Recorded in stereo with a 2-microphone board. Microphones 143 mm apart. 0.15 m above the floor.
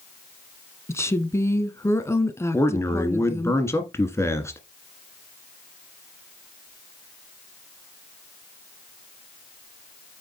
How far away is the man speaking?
About 1.7 m.